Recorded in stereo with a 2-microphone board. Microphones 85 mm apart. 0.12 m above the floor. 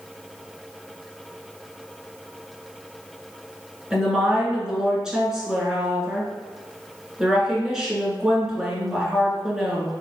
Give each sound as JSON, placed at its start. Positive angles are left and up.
{"t": 3.9, "sound": "a woman speaking", "side_deg": -5, "distance_m": 1.7}